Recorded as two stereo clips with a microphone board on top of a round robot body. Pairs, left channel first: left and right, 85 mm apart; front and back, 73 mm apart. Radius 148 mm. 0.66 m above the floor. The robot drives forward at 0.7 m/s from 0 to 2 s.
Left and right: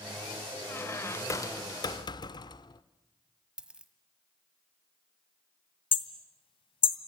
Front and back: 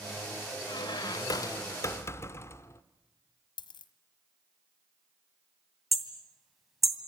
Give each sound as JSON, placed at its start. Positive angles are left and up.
{"t": 0.7, "sound": "a squeak", "azimuth_deg": 25, "distance_m": 1.6}
{"t": 3.6, "sound": "a dropped coin", "azimuth_deg": -10, "distance_m": 1.4}
{"t": 5.9, "sound": "hammering", "azimuth_deg": 90, "distance_m": 2.0}